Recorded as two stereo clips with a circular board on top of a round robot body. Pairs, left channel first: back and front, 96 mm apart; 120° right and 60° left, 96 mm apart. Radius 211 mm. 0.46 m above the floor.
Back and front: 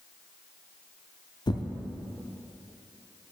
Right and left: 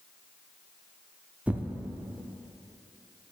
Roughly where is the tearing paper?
Behind left.